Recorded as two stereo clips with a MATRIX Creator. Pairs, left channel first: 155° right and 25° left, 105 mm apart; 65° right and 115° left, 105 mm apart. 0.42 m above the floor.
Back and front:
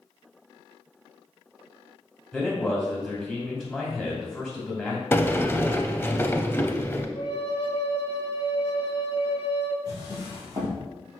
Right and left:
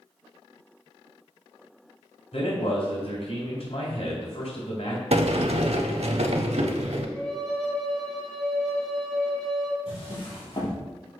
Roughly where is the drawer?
Ahead right.